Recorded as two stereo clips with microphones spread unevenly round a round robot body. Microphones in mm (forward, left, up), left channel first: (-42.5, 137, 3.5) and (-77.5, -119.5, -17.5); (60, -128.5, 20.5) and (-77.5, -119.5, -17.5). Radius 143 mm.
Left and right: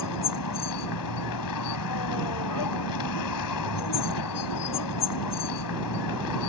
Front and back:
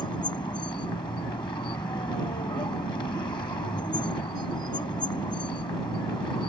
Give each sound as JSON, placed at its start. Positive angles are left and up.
{"t": 0.0, "sound": "a vehicle", "azimuth_deg": 75}